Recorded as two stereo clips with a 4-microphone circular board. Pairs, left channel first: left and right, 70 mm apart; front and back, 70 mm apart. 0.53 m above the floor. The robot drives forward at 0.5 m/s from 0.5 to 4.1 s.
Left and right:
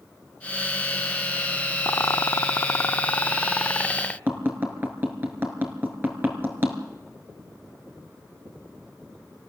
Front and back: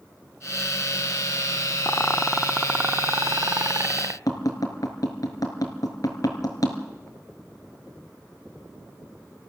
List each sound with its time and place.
1.9 s a rattle: 50° left, 0.5 m; by 4.2 s 160° left, 1.0 m
4.3 s tapping: 30° right, 3.5 m